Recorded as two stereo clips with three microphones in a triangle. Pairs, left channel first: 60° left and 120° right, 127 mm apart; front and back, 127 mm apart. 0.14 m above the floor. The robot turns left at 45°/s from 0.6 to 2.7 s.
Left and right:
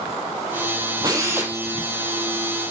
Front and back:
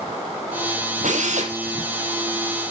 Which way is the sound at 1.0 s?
175° right.